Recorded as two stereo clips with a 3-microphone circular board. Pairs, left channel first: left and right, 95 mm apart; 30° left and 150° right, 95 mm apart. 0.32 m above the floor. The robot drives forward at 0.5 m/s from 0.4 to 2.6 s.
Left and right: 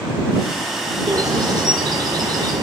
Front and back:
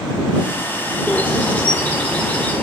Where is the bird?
45° right, 5 m; by 2.6 s 50° right, 4.5 m.